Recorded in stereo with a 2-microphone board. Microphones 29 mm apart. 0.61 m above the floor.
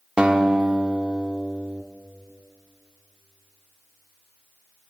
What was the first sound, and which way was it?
A guitar, 35° right (ahead or behind).